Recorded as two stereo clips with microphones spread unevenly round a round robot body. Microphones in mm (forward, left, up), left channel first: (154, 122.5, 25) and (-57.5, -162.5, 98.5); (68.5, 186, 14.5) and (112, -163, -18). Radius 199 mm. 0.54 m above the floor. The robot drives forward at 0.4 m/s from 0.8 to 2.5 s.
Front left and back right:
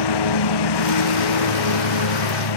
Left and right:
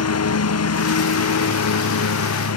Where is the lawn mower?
50° left; by 2.6 s 55° left.